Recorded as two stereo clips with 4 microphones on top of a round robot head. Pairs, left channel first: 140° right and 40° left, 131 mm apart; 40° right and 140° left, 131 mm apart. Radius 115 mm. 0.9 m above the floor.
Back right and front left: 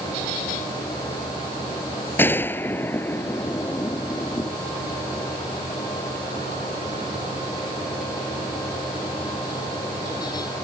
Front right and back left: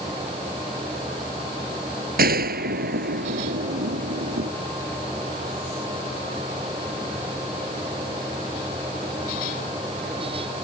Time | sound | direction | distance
2.2 | a gunshot | 145° left | ?